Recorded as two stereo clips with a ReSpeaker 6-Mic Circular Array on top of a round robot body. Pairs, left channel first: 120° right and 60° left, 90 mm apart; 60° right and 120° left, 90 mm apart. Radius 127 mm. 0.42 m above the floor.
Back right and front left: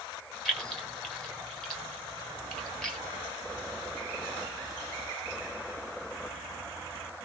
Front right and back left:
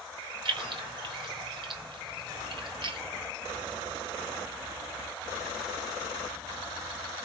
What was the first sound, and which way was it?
Keys jangling, 155° left.